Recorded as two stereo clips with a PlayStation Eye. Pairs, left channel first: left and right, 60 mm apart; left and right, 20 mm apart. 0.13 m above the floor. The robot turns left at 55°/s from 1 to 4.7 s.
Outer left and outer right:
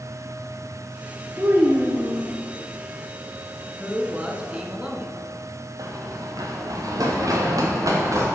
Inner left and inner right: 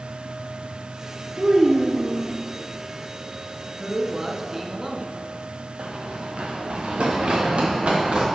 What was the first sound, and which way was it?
A child speaking, 70° right.